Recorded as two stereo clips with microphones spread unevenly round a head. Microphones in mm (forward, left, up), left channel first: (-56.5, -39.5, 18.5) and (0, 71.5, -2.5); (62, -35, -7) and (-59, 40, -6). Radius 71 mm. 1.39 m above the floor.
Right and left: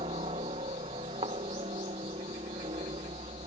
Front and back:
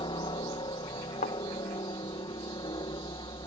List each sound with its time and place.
0.0 s a helicopter: 20° left
1.2 s a thud: straight ahead